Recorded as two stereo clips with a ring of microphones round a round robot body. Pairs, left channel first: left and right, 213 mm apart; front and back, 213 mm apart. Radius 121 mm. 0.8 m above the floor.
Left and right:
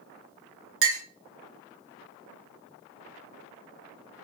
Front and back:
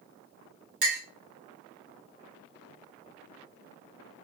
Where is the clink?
120° right, 1.1 m.